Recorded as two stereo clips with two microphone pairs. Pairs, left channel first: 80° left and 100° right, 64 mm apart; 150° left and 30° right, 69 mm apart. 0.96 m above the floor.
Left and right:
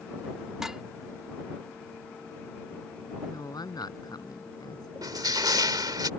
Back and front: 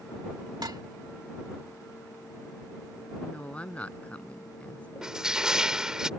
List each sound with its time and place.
0.6 s dishes clattering: 20° right
3.2 s a woman speaking: 80° left
5.0 s crushing: 110° right